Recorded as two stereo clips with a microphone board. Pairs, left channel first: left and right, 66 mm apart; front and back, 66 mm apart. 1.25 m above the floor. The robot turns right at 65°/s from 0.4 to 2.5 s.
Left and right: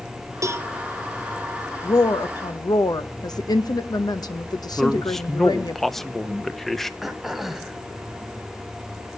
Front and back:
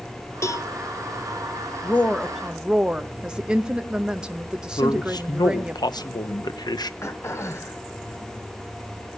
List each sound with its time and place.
0.4 s a cowbell: 45° right, 0.9 m; by 0.7 s 30° right, 0.9 m
1.8 s a woman speaking: 60° left, 0.9 m; by 5.8 s 105° left, 0.9 m
4.8 s a man speaking: 5° left, 1.0 m
7.0 s throat clearing: 5° right, 1.3 m